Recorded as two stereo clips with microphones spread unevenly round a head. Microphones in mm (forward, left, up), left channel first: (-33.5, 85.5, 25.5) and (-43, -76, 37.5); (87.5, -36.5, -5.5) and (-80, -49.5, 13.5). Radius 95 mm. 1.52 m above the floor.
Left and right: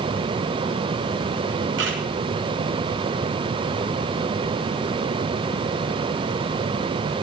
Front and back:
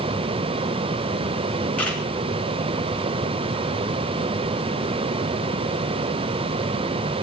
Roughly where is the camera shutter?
Right.